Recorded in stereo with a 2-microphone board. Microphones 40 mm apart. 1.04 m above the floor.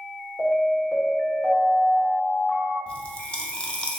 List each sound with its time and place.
0.4 s an alarm: 45° left (ahead or behind), 1.5 m
2.9 s a pop: 20° left (ahead or behind), 0.6 m